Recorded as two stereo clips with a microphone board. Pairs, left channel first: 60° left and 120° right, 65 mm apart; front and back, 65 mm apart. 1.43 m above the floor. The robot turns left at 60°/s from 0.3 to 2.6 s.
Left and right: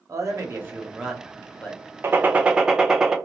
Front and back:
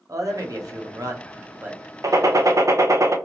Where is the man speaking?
150° right, 0.9 m; by 1.8 s 120° left, 0.9 m.